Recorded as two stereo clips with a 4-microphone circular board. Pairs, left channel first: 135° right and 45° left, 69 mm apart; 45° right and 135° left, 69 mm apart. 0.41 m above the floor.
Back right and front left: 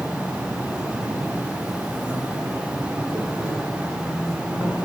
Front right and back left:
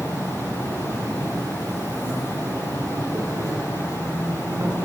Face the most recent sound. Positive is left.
turn(degrees=115)